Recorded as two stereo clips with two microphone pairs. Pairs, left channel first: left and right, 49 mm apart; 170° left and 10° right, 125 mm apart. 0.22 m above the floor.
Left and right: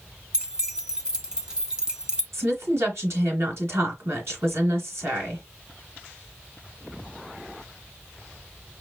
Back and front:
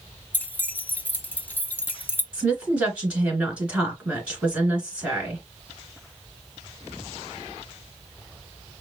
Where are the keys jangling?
135° right, 1.0 m.